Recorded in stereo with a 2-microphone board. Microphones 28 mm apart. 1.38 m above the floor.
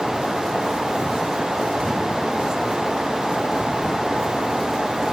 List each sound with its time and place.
Only background noise.